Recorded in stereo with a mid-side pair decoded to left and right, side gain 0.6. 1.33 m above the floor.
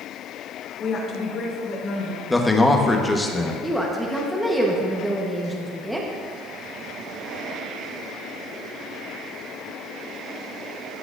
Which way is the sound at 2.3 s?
15° left.